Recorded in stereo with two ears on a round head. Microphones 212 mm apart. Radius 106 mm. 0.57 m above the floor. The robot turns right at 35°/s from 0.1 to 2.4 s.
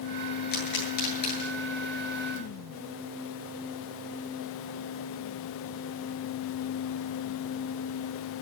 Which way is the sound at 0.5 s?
45° left (ahead or behind).